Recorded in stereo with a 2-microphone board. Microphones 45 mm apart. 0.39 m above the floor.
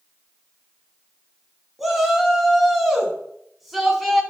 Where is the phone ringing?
No phone ringing in this recording.